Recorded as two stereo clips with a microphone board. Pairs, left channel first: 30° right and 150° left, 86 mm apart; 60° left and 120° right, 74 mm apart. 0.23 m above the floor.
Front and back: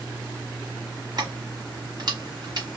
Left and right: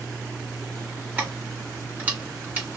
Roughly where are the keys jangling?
Behind.